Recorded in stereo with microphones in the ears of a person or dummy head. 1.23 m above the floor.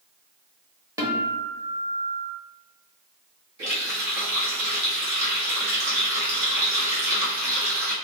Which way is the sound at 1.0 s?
15° right (ahead or behind).